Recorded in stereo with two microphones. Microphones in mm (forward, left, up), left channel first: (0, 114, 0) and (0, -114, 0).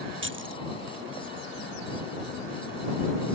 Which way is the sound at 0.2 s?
60° right (ahead or behind).